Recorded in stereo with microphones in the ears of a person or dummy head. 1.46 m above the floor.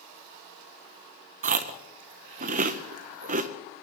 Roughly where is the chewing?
Right.